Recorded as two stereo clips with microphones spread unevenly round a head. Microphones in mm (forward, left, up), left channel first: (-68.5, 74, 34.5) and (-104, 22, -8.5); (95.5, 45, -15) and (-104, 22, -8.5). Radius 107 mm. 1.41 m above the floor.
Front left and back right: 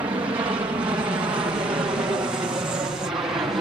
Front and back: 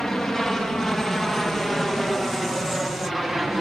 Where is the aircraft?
80° right; by 3.6 s 85° right.